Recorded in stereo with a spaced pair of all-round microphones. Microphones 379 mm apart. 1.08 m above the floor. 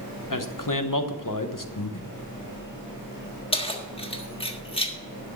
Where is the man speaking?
55° left (ahead or behind), 1.0 m.